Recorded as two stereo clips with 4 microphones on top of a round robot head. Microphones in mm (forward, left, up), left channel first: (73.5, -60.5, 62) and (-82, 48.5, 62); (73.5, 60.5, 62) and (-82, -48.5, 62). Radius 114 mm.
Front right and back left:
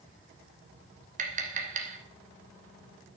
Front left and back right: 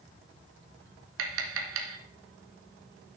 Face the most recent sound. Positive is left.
turn(degrees=-160)